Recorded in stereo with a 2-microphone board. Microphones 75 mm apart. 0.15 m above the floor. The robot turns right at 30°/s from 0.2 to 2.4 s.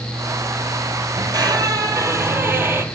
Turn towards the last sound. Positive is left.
turn(degrees=-35)